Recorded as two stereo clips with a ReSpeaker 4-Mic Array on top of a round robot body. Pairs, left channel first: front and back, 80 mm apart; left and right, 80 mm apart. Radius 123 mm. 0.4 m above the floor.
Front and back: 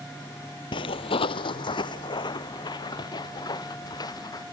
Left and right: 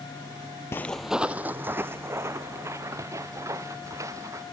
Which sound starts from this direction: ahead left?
Footsteps, at 0.7 s.